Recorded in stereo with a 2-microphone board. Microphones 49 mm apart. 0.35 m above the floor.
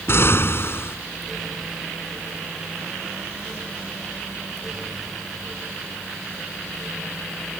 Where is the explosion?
55° left (ahead or behind).